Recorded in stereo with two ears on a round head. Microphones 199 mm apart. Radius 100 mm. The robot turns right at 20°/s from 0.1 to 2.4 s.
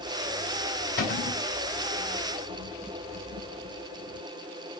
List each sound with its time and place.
1.0 s a cupboard door: 45° left (ahead or behind), 2.5 m; by 1.4 s 55° left (ahead or behind), 2.5 m